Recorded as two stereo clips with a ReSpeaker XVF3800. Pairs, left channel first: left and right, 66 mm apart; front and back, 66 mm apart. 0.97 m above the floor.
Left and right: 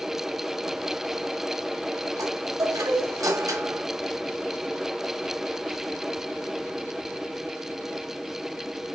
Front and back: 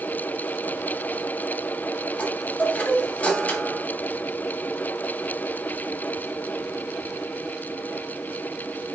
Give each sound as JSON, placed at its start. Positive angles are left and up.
{"t": 2.2, "sound": "a chime", "azimuth_deg": -65, "distance_m": 2.0}